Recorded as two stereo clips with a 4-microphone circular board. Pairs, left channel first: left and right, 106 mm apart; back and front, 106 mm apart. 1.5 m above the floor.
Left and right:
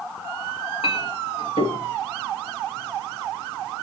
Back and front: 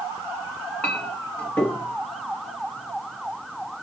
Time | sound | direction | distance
0.8 | a clink | 100° left | 1.7 m